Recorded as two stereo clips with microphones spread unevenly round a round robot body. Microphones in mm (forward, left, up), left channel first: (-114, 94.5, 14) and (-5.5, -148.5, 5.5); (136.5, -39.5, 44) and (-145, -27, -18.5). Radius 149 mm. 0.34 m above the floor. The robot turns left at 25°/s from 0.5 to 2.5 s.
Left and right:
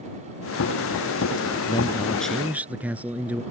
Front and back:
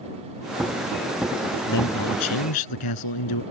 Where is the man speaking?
40° left; by 3.4 s 20° left.